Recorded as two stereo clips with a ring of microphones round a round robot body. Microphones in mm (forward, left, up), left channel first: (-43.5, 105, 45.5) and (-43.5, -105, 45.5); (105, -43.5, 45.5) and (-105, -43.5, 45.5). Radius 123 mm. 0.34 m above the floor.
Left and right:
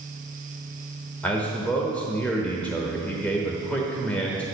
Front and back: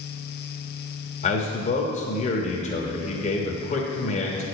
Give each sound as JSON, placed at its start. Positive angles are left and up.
{"t": 1.2, "sound": "a man speaking", "azimuth_deg": 10, "distance_m": 1.1}